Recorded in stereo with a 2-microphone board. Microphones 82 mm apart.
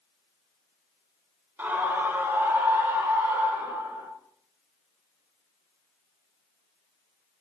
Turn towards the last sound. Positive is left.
turn(degrees=-20)  # may be behind; listen again after turning